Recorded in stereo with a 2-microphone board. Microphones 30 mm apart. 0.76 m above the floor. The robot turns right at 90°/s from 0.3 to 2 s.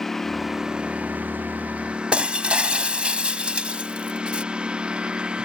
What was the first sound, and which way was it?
A lawn mower, 170° left.